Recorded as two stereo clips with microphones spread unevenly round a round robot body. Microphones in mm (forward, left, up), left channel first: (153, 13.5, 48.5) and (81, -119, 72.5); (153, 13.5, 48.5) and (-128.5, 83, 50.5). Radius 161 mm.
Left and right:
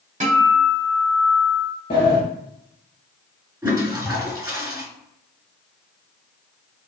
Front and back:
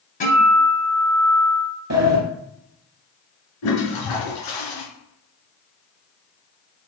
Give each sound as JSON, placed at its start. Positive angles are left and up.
{"t": 0.2, "sound": "a guitar", "azimuth_deg": -75, "distance_m": 2.0}
{"t": 1.9, "sound": "a sliding door", "azimuth_deg": 130, "distance_m": 1.3}
{"t": 3.6, "sound": "a toilet flushing", "azimuth_deg": -50, "distance_m": 2.5}